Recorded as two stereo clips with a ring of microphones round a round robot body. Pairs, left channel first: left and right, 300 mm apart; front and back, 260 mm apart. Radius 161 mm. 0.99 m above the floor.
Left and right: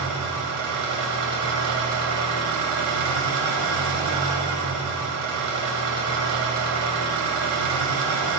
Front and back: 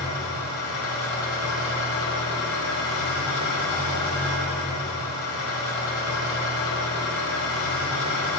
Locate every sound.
0.0 s an engine running: 50° right, 1.7 m